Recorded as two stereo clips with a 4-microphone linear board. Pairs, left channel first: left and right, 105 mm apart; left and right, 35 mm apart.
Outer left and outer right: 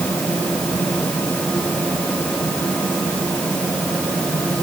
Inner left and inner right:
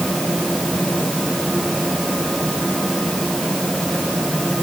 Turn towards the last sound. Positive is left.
No sound to turn to.